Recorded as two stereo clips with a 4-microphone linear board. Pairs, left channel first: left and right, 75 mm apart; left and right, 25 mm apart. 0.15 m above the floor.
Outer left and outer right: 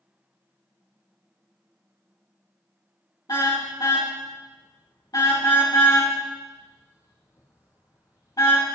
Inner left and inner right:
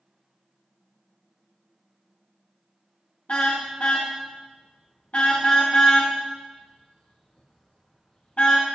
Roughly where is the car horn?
Left.